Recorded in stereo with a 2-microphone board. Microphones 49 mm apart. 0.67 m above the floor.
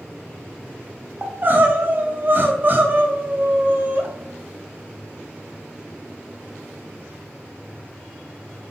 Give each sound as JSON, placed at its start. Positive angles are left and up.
{"t": 1.2, "sound": "crying", "side_deg": -40, "distance_m": 0.8}